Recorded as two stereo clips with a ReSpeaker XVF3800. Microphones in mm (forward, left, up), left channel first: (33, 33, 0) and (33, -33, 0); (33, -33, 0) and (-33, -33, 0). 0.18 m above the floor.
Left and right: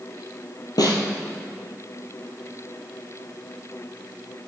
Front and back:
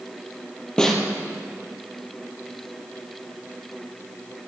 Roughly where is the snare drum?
Left.